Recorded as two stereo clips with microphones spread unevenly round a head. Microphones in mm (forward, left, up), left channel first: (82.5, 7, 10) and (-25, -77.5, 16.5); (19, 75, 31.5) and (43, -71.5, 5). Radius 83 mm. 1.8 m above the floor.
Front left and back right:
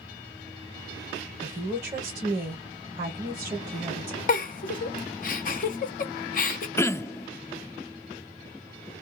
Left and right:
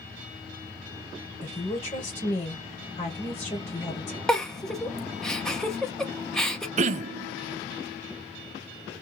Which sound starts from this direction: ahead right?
Throat clearing, at 6.8 s.